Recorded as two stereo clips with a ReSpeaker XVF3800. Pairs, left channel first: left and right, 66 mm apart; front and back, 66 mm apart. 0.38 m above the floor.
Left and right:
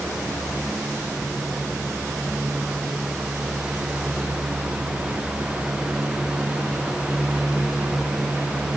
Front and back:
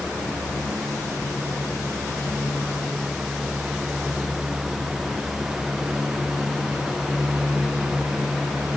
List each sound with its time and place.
Only background noise.